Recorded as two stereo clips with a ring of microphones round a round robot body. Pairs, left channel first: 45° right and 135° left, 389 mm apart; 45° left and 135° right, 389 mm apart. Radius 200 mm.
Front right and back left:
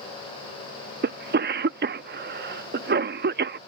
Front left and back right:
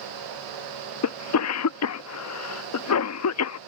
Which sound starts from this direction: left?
A cough, at 1.0 s.